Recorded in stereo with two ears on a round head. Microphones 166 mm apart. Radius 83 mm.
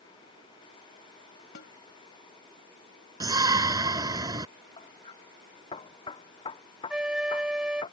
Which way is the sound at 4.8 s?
30° left (ahead or behind).